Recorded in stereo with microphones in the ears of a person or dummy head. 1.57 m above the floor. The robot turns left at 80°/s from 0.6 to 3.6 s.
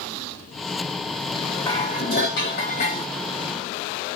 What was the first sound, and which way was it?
Dishes clattering, 165° left.